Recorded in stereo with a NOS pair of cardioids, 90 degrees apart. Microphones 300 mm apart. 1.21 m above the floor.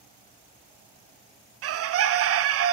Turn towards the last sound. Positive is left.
turn(degrees=-50)